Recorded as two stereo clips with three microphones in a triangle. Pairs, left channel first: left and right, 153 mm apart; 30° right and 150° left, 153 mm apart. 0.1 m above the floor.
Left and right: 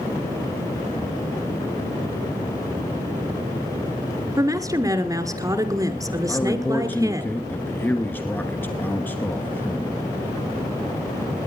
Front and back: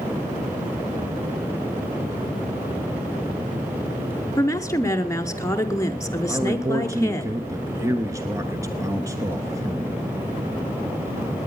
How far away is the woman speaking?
About 1.1 m.